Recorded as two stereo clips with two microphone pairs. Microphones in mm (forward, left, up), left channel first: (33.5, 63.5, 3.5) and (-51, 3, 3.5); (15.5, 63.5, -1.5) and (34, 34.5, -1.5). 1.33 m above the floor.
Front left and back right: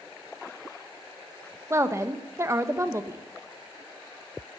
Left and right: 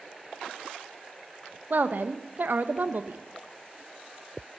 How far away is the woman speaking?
About 0.9 m.